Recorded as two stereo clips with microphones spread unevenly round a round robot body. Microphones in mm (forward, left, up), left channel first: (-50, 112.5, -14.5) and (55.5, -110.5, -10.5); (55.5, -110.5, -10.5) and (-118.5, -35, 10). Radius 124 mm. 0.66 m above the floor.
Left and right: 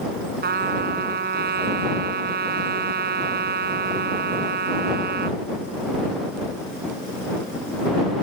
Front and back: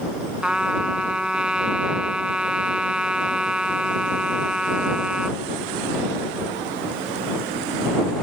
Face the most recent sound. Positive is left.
turn(degrees=-120)